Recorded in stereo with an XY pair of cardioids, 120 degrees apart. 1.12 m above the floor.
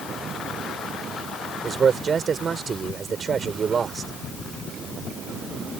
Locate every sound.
1.6 s a man speaking: 40° right